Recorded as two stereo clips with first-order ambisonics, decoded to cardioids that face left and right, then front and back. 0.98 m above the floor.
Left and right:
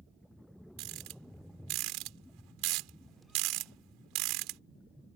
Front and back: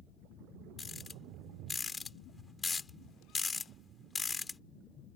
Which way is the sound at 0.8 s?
75° right.